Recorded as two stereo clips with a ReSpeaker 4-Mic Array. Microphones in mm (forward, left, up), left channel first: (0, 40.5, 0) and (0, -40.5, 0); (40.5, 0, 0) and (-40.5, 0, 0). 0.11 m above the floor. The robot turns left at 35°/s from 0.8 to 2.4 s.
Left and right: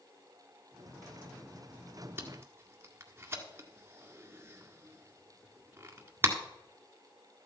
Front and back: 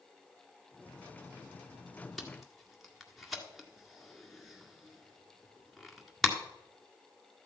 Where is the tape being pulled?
80° right, 1.8 m; by 6.3 s 85° right, 1.8 m.